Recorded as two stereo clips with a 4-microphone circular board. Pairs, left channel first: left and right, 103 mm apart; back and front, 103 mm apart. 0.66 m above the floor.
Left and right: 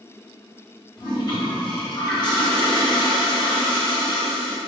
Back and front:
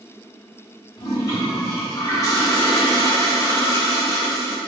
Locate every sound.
1.0 s a toilet flushing: 130° left, 0.8 m